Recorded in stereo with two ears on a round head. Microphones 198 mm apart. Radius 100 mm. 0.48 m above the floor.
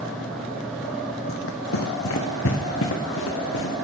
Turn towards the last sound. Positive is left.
turn(degrees=60)  # may be behind; listen again after turning